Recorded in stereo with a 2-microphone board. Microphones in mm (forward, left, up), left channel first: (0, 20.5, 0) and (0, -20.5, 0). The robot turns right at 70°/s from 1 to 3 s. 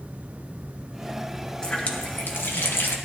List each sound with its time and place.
1.6 s a running tap: 20° left, 1.3 m; by 3.0 s 115° left, 1.3 m